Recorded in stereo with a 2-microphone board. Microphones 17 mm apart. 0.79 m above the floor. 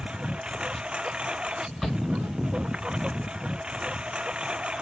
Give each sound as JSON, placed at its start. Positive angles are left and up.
{"t": 0.0, "sound": "a lawn mower", "side_deg": -65}
{"t": 1.8, "sound": "a shout", "side_deg": 10}